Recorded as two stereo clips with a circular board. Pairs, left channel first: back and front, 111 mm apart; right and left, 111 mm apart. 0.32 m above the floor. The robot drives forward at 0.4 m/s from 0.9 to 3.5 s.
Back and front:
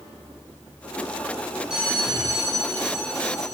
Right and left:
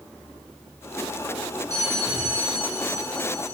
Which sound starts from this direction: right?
A bell, at 1.7 s.